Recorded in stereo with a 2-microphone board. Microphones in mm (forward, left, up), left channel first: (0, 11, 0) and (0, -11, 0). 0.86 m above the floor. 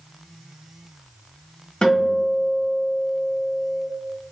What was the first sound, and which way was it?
A guitar, 50° left (ahead or behind).